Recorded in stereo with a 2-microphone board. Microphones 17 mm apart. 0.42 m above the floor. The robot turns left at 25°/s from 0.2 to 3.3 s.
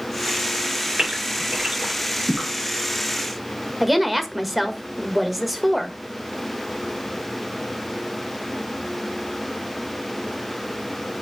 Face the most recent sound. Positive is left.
turn(degrees=0)  # may be behind; listen again after turning